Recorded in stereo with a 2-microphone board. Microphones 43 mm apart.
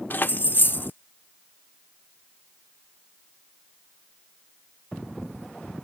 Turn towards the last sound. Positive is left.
turn(degrees=45)  # may be behind; listen again after turning